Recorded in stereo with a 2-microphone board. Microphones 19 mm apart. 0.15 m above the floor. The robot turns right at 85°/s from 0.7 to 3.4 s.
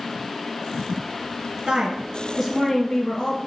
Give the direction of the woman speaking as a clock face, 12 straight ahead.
3 o'clock.